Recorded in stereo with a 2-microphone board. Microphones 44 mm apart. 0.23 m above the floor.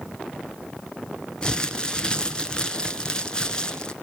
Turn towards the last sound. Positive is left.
turn(degrees=20)  # may be behind; listen again after turning